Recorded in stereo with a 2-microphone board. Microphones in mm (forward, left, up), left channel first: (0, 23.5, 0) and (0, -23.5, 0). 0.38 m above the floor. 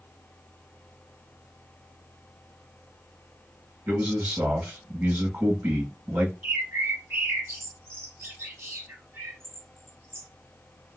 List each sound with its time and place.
3.9 s a man speaking: 45° right (ahead or behind), 3 m
6.4 s a bird: 55° right (ahead or behind), 2 m